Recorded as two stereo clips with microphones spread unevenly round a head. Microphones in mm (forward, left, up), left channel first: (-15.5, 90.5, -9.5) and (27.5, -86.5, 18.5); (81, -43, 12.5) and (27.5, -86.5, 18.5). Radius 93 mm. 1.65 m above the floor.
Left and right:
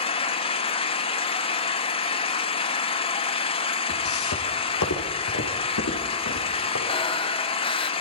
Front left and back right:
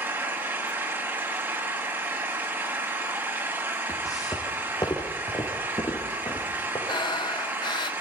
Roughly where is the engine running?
Behind.